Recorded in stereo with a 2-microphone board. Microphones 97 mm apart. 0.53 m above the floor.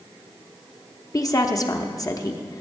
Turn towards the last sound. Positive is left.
turn(degrees=35)  # may be behind; listen again after turning